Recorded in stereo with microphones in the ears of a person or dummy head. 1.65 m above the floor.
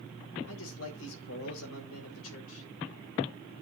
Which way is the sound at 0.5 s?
80° left.